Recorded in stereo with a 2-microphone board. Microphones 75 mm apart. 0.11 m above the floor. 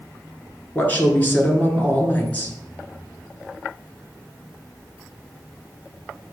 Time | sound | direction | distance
0.8 | a woman speaking | 20° left (ahead or behind) | 1.4 m